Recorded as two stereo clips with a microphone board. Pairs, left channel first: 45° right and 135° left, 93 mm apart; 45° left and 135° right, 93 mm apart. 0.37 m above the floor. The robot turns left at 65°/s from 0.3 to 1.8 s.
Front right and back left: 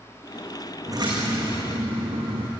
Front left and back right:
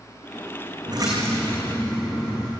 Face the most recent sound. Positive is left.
turn(degrees=125)